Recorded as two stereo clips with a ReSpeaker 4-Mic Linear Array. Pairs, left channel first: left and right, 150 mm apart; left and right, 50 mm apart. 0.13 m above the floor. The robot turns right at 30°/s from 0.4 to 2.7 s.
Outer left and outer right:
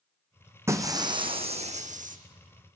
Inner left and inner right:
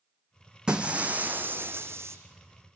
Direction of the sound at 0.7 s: 160° right.